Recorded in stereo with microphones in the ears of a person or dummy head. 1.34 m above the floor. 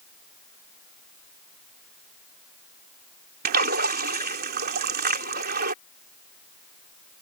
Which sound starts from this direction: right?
A splash, at 3.5 s.